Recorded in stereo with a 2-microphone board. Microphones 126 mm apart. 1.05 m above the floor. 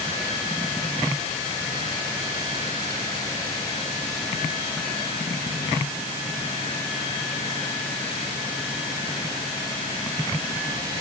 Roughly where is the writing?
No writing in this recording.